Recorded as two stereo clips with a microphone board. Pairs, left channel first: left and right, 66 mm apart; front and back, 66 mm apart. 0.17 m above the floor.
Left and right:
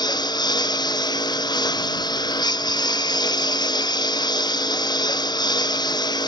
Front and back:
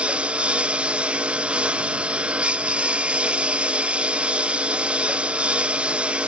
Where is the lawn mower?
105° left.